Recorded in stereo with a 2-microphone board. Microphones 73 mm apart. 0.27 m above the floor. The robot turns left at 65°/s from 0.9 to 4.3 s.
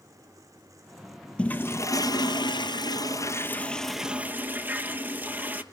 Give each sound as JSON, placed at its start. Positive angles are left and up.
{"t": 1.4, "sound": "a toilet flushing", "azimuth_deg": 165, "distance_m": 1.2}